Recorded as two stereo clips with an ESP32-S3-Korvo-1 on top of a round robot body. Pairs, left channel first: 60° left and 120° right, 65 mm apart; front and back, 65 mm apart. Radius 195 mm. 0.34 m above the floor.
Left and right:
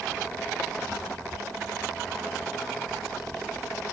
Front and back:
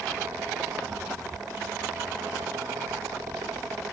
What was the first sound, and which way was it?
Only background noise.